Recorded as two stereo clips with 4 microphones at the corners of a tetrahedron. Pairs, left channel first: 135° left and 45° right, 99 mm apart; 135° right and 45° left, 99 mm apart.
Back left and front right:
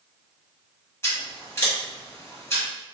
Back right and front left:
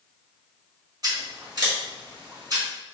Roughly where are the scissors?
Left.